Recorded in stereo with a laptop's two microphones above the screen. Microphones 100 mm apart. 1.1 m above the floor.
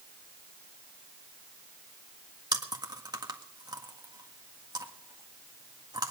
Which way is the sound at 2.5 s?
45° right (ahead or behind).